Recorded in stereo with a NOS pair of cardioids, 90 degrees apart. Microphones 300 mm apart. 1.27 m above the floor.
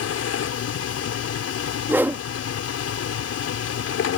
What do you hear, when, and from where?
0.0 s a machine running: 55° left
1.9 s a whoosh: 5° right